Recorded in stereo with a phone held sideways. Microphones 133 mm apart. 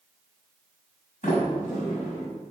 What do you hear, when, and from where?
1.2 s a sliding door: 80° left, 5.5 m